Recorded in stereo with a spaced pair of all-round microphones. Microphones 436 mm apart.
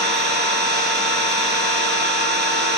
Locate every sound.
0.0 s an engine running: 25° right (ahead or behind), 1.0 m